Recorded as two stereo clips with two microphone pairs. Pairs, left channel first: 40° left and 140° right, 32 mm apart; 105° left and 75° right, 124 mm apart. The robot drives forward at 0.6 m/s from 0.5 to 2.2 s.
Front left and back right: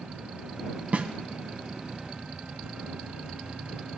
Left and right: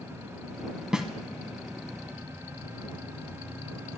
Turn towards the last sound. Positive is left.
turn(degrees=-170)